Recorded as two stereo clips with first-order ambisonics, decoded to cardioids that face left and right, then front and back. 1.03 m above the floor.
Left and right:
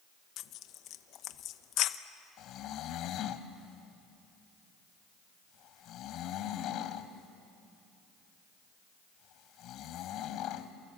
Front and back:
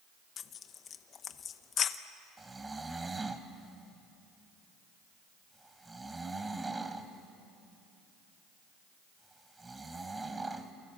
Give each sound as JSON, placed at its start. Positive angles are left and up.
{"t": 0.4, "sound": "tearing paper", "azimuth_deg": 55, "distance_m": 0.7}
{"t": 2.4, "sound": "snoring", "azimuth_deg": 105, "distance_m": 1.1}